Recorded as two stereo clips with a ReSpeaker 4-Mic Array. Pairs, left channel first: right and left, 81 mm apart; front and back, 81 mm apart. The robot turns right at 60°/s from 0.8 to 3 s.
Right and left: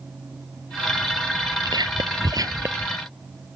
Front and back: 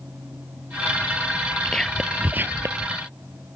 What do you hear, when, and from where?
1.6 s whispering: 75° left; by 2.9 s 150° left